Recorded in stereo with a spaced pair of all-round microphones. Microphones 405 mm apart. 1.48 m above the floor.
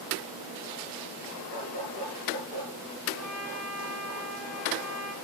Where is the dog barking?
70° left (ahead or behind), 6 m.